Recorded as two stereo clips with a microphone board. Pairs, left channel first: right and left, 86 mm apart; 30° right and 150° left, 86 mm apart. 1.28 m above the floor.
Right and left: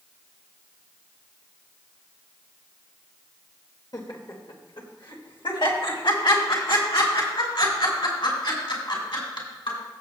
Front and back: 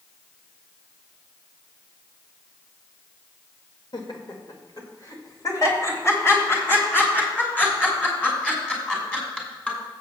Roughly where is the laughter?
Ahead right.